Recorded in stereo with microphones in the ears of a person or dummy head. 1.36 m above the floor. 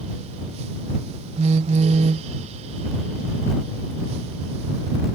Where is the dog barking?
I don't hear a dog barking.